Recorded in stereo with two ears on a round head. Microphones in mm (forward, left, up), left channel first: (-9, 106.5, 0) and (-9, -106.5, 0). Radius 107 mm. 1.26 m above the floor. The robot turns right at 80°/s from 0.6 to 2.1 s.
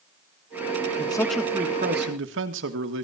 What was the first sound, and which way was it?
A man speaking, 150° left.